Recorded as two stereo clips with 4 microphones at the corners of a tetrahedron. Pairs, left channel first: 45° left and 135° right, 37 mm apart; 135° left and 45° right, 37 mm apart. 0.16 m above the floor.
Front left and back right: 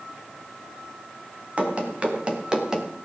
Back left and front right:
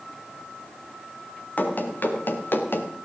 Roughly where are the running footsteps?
Behind.